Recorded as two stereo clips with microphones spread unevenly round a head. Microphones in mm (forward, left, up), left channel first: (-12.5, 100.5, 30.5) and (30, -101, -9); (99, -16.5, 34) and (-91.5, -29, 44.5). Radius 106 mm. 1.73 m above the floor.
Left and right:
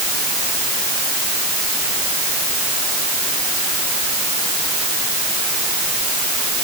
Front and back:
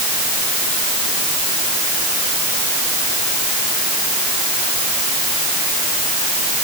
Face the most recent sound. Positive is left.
No sound to turn to.